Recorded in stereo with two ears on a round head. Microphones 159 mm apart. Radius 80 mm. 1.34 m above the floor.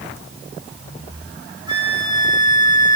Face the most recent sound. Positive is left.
turn(degrees=-25)  # may be behind; listen again after turning